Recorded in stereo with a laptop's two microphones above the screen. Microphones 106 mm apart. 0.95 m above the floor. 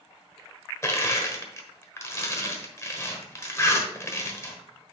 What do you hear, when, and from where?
0.8 s crushing: 30° left (ahead or behind), 1.2 m